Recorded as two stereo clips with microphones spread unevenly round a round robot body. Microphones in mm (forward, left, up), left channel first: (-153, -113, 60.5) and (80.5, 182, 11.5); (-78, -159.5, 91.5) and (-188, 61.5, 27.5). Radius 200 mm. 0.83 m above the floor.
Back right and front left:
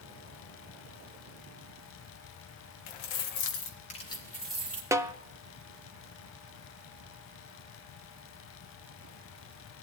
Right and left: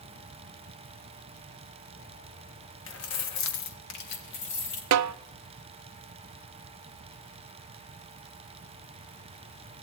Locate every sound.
2.9 s keys jangling: 105° right, 1.2 m; by 4.8 s 30° right, 2 m
4.9 s a snare drum: 135° left, 0.6 m